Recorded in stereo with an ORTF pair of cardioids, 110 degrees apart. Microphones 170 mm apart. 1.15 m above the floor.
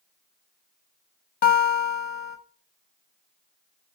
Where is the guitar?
65° left, 1.2 m.